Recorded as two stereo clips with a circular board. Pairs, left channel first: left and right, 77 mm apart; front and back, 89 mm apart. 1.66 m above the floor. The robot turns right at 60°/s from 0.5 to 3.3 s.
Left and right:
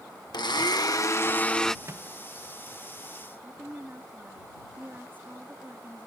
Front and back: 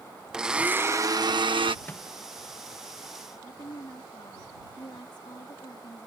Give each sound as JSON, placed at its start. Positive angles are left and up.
{"t": 0.3, "sound": "a blender", "azimuth_deg": 100}
{"t": 1.9, "sound": "a microwave", "azimuth_deg": -60}
{"t": 3.4, "sound": "a woman speaking", "azimuth_deg": -25}